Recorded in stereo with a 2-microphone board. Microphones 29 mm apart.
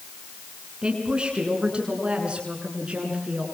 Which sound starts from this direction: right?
A woman speaking, at 0.8 s.